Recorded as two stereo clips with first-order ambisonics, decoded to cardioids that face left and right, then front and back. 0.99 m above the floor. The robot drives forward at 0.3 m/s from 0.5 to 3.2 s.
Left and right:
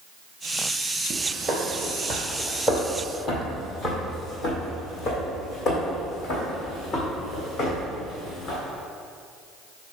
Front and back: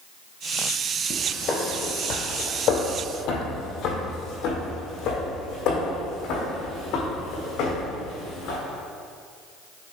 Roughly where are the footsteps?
Ahead right.